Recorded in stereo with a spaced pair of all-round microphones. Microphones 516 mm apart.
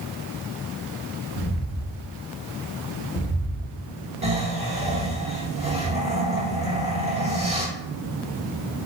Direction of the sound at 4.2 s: 10° right (ahead or behind).